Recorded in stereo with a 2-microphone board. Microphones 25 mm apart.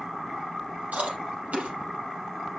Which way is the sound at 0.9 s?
70° right (ahead or behind).